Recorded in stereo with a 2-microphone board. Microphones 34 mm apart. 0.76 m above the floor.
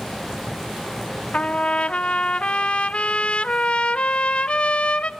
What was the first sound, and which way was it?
A trumpet, 35° left (ahead or behind).